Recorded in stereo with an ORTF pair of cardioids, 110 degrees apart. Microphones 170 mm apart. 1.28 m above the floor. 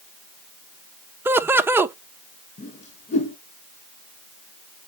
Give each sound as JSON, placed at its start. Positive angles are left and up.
{"t": 1.2, "sound": "laughter", "azimuth_deg": -15, "distance_m": 0.8}
{"t": 2.6, "sound": "a whoosh", "azimuth_deg": 50, "distance_m": 3.5}